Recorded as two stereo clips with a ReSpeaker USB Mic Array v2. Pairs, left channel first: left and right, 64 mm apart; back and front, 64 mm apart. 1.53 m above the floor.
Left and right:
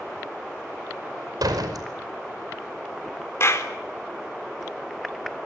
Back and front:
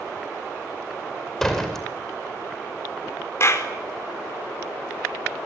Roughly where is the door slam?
Right.